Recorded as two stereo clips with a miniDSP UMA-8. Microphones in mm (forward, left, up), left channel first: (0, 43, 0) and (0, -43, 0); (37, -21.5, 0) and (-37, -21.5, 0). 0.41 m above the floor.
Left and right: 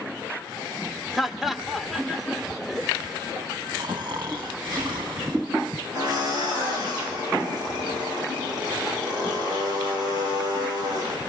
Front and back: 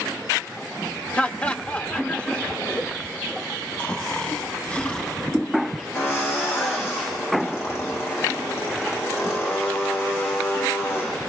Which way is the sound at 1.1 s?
5° right.